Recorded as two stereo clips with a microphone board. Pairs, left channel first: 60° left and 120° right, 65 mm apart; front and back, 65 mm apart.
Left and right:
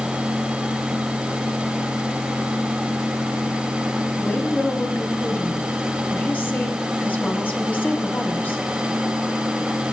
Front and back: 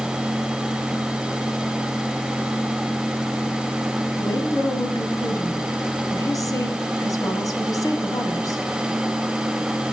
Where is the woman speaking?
5° left, 2.5 m.